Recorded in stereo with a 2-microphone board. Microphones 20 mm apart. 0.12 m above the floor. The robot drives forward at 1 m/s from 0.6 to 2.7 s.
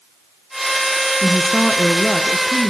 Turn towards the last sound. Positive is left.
turn(degrees=15)  # may be behind; listen again after turning